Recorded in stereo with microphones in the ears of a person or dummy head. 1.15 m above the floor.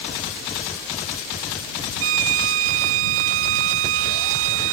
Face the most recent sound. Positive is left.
turn(degrees=-80)